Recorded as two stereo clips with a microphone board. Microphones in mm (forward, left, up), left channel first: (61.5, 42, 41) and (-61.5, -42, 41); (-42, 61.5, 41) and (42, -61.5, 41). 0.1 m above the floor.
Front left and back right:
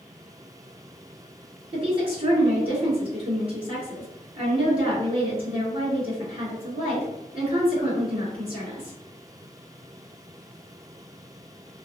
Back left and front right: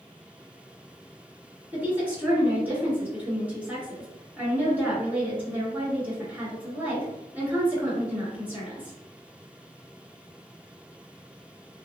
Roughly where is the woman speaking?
Behind right.